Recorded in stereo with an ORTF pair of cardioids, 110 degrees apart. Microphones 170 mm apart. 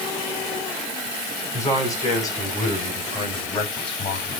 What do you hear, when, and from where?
1.5 s a man speaking: 20° left, 9.5 m; by 4.4 s 35° left, 5.5 m